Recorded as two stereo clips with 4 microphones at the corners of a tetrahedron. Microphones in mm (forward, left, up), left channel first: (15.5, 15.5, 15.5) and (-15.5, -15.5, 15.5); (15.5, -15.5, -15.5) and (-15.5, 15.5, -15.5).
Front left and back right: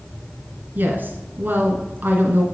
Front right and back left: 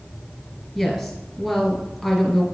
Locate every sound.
0.8 s a woman speaking: 130° right, 1.4 m